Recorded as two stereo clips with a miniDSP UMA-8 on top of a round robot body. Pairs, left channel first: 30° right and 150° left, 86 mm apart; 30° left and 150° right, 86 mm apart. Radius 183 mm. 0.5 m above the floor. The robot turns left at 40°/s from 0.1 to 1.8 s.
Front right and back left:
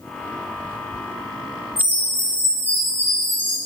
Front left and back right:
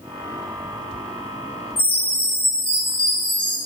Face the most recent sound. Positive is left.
turn(degrees=40)